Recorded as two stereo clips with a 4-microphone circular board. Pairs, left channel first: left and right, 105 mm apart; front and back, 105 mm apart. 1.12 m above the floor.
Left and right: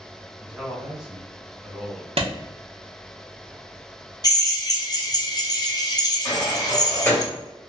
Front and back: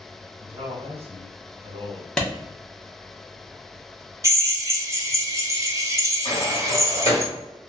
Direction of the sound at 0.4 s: 175° right.